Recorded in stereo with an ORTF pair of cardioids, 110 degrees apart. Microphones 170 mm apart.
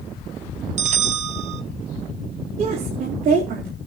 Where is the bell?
45° right, 0.7 m.